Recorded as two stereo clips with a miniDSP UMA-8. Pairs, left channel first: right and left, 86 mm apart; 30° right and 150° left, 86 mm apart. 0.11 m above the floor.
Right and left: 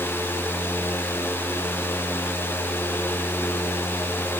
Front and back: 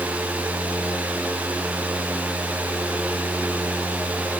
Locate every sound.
Only background noise.